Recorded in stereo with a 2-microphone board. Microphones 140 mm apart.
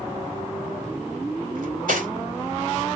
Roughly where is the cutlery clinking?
Right.